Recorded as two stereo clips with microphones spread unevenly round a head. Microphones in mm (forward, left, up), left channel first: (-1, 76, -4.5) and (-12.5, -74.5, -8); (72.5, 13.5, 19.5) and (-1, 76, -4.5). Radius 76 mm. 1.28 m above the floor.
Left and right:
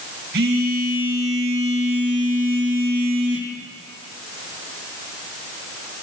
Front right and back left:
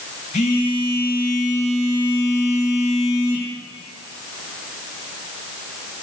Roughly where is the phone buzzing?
Ahead right.